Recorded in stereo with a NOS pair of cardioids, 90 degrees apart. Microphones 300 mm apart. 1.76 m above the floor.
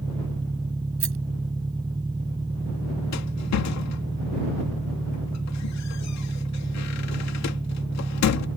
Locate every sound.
0.0 s an engine running: 15° right
1.0 s a rattle: 45° right
3.1 s a rattle: 65° left